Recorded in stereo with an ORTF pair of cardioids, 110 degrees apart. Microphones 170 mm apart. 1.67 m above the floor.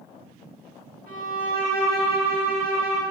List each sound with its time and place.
1.1 s a violin: 65° right, 0.9 m